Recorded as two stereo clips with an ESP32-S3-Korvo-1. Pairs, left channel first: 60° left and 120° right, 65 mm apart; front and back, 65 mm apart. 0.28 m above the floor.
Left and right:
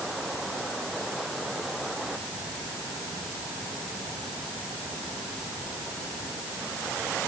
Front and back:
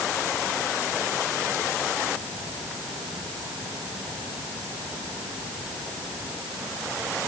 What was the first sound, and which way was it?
Only background noise.